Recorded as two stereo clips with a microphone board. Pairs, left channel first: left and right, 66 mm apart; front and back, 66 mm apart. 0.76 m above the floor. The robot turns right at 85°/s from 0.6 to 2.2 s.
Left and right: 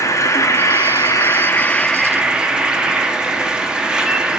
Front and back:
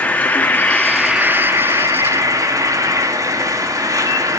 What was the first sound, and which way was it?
An insect, 60° left.